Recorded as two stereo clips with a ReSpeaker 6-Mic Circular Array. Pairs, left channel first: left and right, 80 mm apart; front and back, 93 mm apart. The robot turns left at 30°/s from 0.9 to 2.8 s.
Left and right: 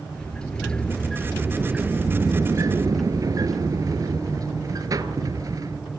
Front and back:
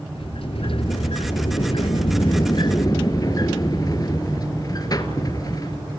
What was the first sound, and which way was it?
A sliding door, 10° left.